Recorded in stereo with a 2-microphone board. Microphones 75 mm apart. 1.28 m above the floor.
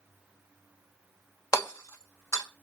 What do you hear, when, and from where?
1.5 s hammering: 40° left (ahead or behind), 1.3 m